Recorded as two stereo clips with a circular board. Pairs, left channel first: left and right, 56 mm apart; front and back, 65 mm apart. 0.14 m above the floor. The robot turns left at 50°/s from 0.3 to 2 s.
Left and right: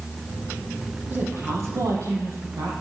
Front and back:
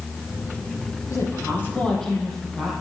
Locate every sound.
1.1 s a woman speaking: 35° right, 4.5 m; by 2.7 s 80° right, 4.5 m